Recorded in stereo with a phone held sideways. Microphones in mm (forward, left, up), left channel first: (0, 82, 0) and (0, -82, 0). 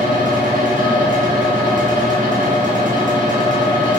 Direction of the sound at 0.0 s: 55° right (ahead or behind).